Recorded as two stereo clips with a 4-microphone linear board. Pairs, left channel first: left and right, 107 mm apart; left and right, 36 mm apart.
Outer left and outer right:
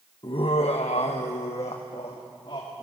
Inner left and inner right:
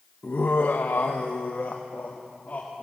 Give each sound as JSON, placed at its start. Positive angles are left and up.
{"t": 0.2, "sound": "laughter", "side_deg": 50, "distance_m": 0.9}